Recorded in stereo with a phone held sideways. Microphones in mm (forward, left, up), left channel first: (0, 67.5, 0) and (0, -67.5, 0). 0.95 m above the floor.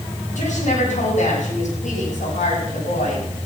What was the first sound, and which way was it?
A woman speaking, 85° left.